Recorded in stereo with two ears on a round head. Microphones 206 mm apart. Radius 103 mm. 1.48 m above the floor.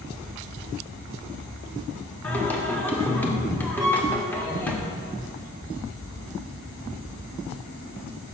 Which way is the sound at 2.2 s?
10° left (ahead or behind).